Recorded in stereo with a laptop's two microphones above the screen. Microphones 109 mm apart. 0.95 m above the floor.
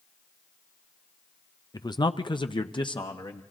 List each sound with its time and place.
1.7 s a man speaking: 35° left (ahead or behind), 0.6 m; by 3.4 s 45° left (ahead or behind), 1.5 m